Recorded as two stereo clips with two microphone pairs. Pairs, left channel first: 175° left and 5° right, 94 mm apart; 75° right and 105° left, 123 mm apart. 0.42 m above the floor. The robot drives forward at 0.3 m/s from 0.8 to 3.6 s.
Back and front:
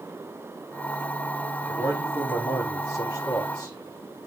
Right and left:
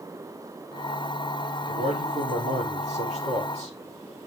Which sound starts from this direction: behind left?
A man speaking, at 1.7 s.